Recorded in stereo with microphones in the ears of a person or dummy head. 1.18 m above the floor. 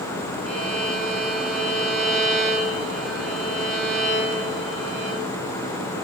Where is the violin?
Centre (ahead or behind), 0.8 m.